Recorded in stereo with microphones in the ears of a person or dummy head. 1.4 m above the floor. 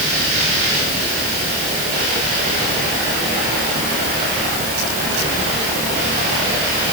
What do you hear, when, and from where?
Only background noise.